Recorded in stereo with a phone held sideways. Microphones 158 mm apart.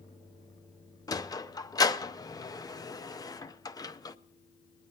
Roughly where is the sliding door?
Left.